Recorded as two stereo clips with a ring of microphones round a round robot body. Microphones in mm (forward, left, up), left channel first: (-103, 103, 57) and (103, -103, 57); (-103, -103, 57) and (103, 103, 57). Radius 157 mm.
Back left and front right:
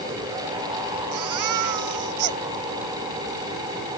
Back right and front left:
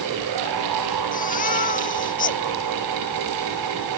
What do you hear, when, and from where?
1.1 s a baby crying: 70° right